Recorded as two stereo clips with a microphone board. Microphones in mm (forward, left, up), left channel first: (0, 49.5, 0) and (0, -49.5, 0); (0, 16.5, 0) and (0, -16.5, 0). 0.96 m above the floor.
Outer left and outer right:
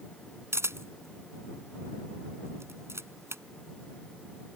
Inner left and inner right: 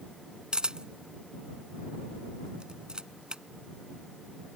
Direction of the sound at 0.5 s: 25° right (ahead or behind).